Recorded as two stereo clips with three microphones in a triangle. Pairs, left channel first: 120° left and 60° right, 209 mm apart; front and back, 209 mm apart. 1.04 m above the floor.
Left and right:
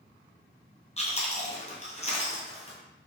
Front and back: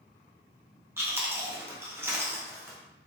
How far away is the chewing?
About 0.5 m.